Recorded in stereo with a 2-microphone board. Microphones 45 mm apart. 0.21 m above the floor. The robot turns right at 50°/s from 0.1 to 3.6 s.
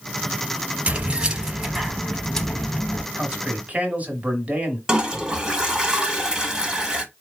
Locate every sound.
0.9 s keys jangling: 55° right, 0.8 m; by 3.0 s 55° left, 0.8 m
3.1 s a man speaking: 35° right (ahead or behind), 1.4 m
4.9 s a toilet flushing: 15° right (ahead or behind), 1.0 m